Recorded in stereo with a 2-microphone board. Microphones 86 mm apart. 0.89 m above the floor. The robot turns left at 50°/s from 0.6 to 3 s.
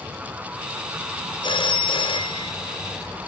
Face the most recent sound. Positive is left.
turn(degrees=35)